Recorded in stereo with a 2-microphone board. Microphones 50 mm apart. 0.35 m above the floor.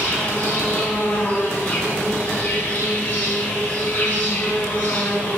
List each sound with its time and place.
0.0 s an insect: 35° left (ahead or behind), 5 m